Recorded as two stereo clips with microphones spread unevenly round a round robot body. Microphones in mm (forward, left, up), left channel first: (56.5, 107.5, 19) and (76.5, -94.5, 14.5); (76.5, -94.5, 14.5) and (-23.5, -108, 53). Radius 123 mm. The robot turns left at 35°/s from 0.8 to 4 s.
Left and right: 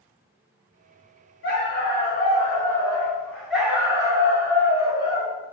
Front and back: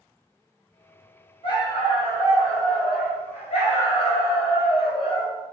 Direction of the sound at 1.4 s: 80° left.